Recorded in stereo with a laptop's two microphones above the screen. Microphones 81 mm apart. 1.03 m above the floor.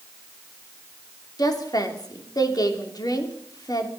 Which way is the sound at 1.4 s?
50° left (ahead or behind).